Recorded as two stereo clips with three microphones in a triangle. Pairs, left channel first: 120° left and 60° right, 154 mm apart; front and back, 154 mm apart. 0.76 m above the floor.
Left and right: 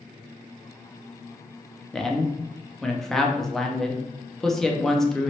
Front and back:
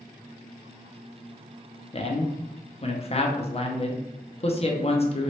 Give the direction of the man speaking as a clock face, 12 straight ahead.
11 o'clock.